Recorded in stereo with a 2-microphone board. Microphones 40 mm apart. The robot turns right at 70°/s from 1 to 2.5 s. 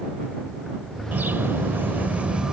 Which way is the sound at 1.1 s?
120° right.